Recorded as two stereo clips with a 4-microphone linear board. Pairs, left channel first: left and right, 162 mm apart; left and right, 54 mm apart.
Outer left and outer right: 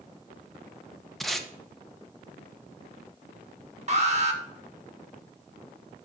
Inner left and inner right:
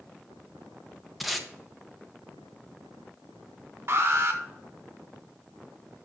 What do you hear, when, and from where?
1.2 s tape being pulled: centre (ahead or behind), 0.9 m
3.9 s an alarm: 45° right (ahead or behind), 1.5 m